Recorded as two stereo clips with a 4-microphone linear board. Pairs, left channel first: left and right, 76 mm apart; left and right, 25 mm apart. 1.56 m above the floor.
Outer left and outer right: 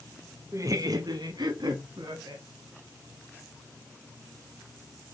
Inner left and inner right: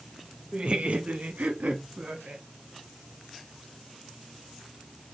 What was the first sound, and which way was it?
Laughter, 40° right (ahead or behind).